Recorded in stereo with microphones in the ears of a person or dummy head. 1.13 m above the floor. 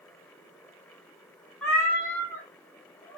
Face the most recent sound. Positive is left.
turn(degrees=15)  # may be behind; listen again after turning